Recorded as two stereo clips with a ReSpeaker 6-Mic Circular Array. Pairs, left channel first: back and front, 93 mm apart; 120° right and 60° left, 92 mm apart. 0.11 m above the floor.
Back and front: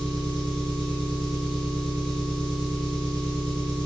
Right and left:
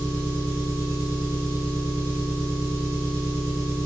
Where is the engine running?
95° left, 1.1 m.